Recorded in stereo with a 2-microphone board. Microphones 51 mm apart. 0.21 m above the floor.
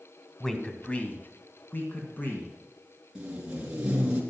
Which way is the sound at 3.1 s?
20° right (ahead or behind).